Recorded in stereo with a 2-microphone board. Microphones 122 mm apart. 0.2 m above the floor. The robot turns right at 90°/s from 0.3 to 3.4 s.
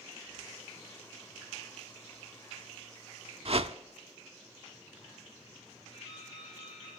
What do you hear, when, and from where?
3.5 s a whoosh: 55° right (ahead or behind), 0.5 m
5.9 s dripping: 45° left (ahead or behind), 8 m